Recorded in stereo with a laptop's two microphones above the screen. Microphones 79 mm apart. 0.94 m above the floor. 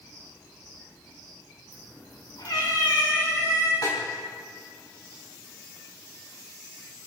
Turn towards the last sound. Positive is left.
turn(degrees=55)  # may be behind; listen again after turning